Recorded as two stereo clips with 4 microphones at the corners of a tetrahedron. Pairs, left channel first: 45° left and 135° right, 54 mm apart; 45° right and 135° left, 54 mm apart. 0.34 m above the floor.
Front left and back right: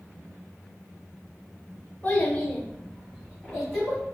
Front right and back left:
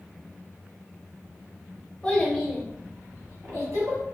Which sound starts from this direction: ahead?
A child speaking, at 2.0 s.